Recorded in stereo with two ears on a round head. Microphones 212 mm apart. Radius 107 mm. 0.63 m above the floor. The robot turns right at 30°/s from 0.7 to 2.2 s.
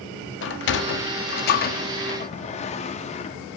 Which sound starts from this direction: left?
A sliding door, at 0.4 s.